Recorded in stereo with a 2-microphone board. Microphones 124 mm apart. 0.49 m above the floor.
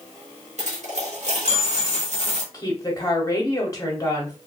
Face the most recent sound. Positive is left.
turn(degrees=30)  # may be behind; listen again after turning